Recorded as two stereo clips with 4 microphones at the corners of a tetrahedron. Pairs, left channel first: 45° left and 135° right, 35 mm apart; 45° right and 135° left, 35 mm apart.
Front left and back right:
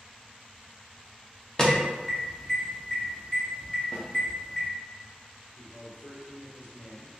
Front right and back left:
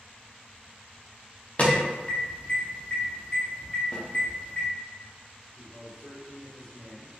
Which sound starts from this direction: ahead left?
A man speaking, at 5.6 s.